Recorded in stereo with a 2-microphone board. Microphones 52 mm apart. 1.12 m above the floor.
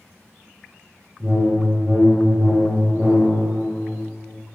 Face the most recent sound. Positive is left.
turn(degrees=-40)  # may be behind; listen again after turning